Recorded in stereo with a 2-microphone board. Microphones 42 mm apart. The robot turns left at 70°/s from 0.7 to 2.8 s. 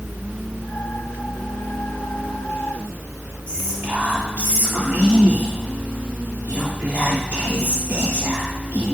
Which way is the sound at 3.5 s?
40° right (ahead or behind).